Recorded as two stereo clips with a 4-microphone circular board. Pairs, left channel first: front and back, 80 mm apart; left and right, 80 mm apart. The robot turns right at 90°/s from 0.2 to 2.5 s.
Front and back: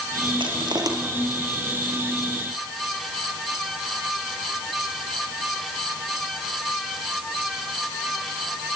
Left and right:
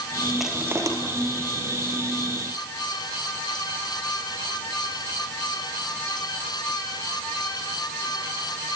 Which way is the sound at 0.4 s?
Straight behind.